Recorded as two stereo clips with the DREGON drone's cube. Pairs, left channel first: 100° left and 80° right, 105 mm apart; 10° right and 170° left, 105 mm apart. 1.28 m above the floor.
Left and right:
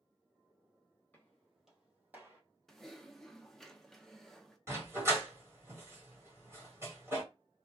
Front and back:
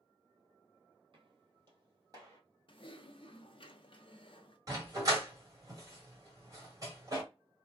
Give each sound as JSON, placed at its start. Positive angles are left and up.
{"t": 1.1, "sound": "footsteps", "azimuth_deg": 170, "distance_m": 1.9}
{"t": 2.7, "sound": "typing on a keyboard", "azimuth_deg": 15, "distance_m": 0.6}
{"t": 4.7, "sound": "a dog barking", "azimuth_deg": -140, "distance_m": 1.9}